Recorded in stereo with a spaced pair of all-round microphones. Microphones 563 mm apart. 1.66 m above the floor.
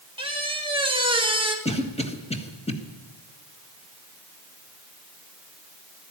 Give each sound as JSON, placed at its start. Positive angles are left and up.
{"t": 0.2, "sound": "a squeak", "side_deg": -10, "distance_m": 1.6}
{"t": 1.6, "sound": "a cough", "side_deg": 10, "distance_m": 1.5}